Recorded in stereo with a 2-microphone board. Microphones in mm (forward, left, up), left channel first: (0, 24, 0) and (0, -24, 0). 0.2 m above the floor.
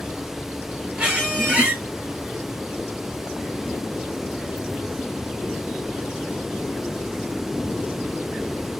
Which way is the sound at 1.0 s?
20° right (ahead or behind).